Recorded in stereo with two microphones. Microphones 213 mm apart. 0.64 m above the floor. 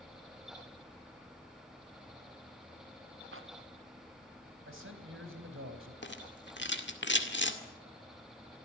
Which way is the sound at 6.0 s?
60° left (ahead or behind).